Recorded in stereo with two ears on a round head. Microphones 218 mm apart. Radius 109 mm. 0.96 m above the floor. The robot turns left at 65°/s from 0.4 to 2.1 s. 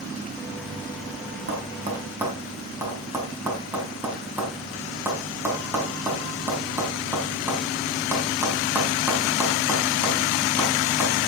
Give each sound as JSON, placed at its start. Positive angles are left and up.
{"t": 1.5, "sound": "tapping", "side_deg": -50, "distance_m": 4.5}